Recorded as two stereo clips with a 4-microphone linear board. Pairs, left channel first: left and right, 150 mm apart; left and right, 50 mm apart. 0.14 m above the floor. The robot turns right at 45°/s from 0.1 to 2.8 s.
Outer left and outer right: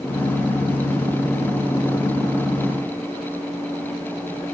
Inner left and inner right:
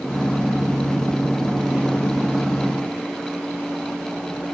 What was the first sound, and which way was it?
Only background noise.